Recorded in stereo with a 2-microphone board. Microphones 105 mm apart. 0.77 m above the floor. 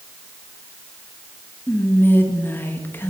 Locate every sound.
1.7 s whispering: 20° left (ahead or behind), 0.8 m